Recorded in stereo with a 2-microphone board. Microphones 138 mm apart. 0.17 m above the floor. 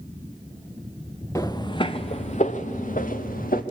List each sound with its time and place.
1.4 s footsteps: 25° left (ahead or behind), 1.1 m; by 3.6 s 80° left, 1.7 m